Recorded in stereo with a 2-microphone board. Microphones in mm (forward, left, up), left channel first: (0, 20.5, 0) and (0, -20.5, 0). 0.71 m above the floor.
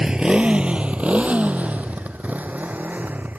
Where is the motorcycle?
15° right (ahead or behind); by 3.4 s 40° right (ahead or behind).